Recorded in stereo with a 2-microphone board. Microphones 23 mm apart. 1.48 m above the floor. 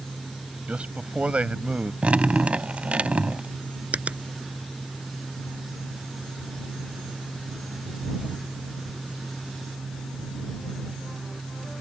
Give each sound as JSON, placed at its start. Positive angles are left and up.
{"t": 0.7, "sound": "a man speaking", "side_deg": -60}
{"t": 2.0, "sound": "dripping", "side_deg": -65}
{"t": 3.9, "sound": "a finger snap", "side_deg": -75}